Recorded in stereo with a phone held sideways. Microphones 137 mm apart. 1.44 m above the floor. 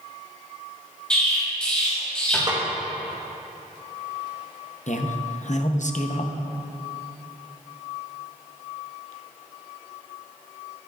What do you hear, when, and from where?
1.1 s an explosion: 5° left (ahead or behind), 3 m
2.5 s a snare drum: 30° right (ahead or behind), 1.8 m
4.9 s a man speaking: 60° left (ahead or behind), 0.7 m